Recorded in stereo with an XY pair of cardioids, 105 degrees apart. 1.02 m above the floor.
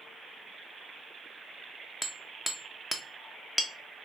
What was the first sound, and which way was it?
Hammering, 5° left.